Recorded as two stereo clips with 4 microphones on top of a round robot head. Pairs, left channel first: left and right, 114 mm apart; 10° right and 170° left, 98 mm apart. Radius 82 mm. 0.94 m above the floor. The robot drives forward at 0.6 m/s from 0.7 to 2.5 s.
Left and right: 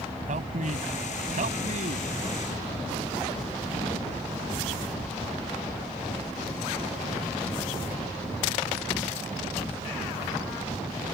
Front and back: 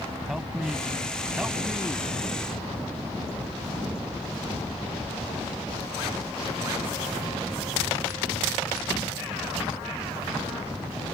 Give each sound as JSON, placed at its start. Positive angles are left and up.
{"t": 0.3, "sound": "a man speaking", "azimuth_deg": -105}